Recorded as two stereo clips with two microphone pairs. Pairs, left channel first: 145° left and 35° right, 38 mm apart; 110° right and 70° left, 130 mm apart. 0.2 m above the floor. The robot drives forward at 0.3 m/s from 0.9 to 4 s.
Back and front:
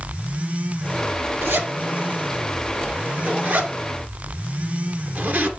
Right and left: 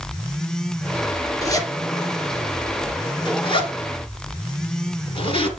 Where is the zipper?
45° right, 2 m; by 5.5 s 65° right, 1.8 m.